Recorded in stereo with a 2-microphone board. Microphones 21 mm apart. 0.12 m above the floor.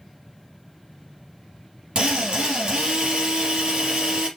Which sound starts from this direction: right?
A drill, at 1.9 s.